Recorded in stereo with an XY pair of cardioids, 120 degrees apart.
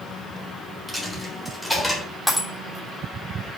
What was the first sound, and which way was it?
A dropped coin, 10° right.